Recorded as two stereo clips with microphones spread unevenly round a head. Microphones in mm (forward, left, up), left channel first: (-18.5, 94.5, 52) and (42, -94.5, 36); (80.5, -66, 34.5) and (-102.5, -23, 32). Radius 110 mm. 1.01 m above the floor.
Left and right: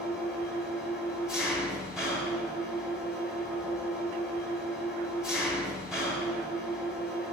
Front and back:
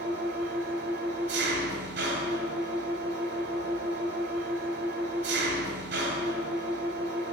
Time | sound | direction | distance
0.0 | an engine running | 160° right | 1.9 m